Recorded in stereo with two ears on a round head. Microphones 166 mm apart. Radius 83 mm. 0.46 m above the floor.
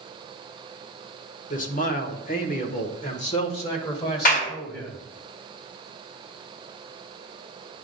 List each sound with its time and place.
1.5 s a man speaking: 45° left (ahead or behind), 1.2 m; by 5.0 s 25° left (ahead or behind), 2 m
4.2 s a clap: 50° left (ahead or behind), 2.5 m